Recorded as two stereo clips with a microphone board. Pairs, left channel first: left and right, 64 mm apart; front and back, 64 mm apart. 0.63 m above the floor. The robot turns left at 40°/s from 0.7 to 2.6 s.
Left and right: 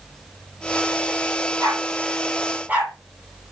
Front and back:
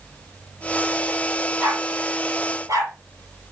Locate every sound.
1.6 s a dog barking: 115° right, 7.5 m; by 2.9 s 155° right, 7.5 m